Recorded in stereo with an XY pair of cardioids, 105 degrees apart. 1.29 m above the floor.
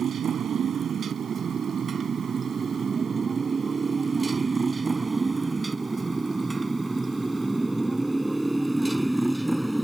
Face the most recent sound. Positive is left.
turn(degrees=0)